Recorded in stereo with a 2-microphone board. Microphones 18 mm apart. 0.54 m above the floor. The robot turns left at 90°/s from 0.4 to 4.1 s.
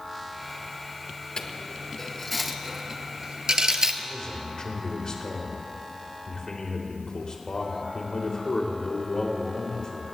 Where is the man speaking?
45° left (ahead or behind), 2.5 m; by 10.1 s 50° left (ahead or behind), 2.5 m.